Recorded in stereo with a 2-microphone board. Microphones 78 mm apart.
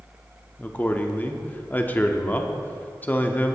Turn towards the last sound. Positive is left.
turn(degrees=25)  # may be behind; listen again after turning